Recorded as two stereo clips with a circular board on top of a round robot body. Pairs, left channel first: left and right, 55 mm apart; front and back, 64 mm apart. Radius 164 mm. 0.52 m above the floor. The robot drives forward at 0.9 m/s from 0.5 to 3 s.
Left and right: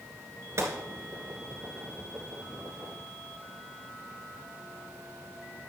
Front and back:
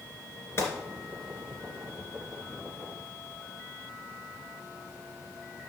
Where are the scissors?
I don't hear scissors.